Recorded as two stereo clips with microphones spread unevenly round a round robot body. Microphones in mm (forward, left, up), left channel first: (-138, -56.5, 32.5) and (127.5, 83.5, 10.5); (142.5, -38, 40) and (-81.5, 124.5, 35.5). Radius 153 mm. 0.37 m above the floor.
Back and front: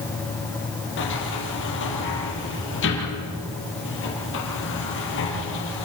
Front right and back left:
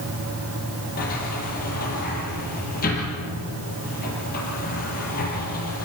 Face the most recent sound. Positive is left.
turn(degrees=-100)